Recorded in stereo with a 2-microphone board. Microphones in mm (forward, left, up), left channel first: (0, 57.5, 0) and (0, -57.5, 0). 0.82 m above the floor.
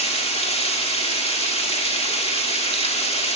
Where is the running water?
60° left (ahead or behind), 2.0 m.